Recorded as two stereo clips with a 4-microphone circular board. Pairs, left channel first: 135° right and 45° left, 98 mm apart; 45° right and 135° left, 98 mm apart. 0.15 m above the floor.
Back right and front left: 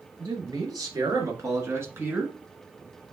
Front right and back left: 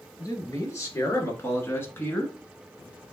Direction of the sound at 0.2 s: 5° left.